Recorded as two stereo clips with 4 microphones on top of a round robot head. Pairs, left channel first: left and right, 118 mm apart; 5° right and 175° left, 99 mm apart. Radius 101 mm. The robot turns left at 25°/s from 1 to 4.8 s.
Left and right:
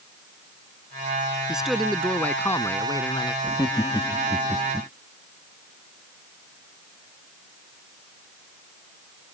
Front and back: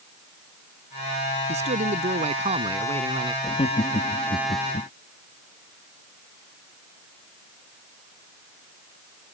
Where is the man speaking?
175° right; by 3.3 s 140° left.